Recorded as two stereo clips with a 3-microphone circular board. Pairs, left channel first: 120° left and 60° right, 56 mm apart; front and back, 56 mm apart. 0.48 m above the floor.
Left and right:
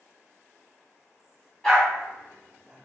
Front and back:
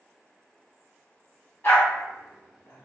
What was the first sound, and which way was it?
A dog barking, 40° left.